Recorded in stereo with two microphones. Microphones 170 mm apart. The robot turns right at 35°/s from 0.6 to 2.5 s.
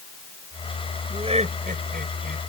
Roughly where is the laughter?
Right.